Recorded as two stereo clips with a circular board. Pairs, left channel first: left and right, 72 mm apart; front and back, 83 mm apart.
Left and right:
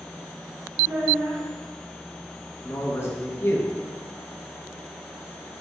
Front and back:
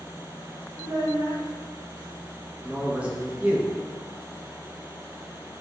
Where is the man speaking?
115° left, 0.7 m.